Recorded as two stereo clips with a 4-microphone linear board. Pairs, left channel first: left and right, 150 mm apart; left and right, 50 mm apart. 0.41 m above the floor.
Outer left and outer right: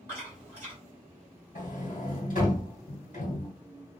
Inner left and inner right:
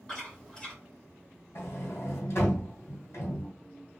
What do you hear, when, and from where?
0.1 s chewing: 20° left (ahead or behind), 1.9 m
1.6 s a sliding door: 60° left (ahead or behind), 2 m